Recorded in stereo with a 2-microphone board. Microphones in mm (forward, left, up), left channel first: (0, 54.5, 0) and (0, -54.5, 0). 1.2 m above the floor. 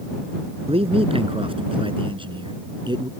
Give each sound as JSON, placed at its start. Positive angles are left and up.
{"t": 0.7, "sound": "a man speaking", "side_deg": -60}